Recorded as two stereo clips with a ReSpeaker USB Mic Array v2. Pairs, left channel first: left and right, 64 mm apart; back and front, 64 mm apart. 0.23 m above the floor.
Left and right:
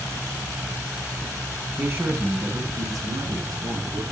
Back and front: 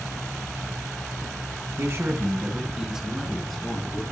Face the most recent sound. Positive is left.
turn(degrees=-100)